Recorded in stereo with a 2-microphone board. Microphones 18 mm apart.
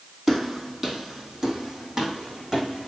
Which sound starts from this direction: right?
Footsteps, at 0.3 s.